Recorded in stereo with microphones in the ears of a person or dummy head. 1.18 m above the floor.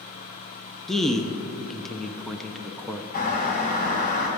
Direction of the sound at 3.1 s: 45° left (ahead or behind).